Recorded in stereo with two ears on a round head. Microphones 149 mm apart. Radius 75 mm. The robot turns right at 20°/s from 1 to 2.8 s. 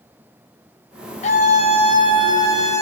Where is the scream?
130° left, 3 m; by 2.8 s 160° left, 3 m.